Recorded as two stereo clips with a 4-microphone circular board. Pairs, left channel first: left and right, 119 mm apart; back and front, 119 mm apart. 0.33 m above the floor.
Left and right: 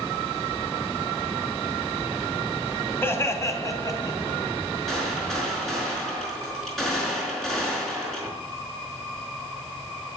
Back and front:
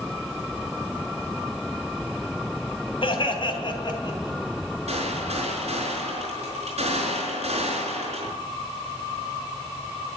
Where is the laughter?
155° left, 2.5 m; by 4.4 s 135° left, 3 m.